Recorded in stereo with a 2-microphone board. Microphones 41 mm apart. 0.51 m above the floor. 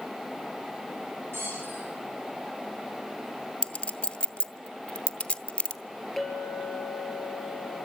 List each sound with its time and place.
1.3 s a squeak: 75° right (ahead or behind), 8.5 m
3.6 s a clink: 25° left (ahead or behind), 0.8 m
6.2 s a clink: centre (ahead or behind), 7 m